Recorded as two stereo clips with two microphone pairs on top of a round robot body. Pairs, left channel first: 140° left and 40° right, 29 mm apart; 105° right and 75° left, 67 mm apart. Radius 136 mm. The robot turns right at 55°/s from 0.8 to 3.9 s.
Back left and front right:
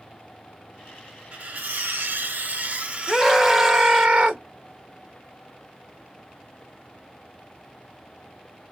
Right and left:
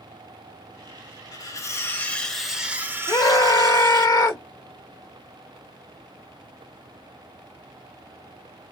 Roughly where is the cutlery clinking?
Right.